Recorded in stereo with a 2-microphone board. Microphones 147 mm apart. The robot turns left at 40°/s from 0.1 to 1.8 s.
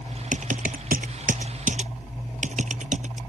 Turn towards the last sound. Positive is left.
turn(degrees=-60)  # may be behind; listen again after turning